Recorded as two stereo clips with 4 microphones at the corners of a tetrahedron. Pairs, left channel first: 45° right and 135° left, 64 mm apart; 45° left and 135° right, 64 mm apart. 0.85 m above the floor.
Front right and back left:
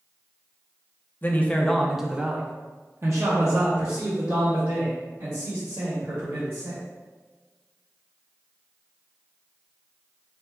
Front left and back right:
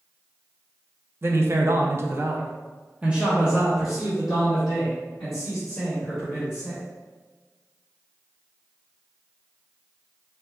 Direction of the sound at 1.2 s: 95° right.